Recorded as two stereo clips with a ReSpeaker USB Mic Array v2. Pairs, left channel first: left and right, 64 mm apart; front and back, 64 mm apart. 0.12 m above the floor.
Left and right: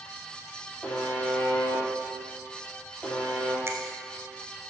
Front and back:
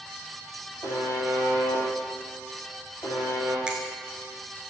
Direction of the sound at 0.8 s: 20° left.